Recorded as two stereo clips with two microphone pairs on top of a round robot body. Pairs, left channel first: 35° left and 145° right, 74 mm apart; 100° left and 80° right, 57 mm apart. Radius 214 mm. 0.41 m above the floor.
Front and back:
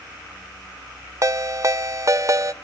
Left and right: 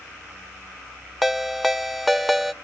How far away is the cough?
No cough in this recording.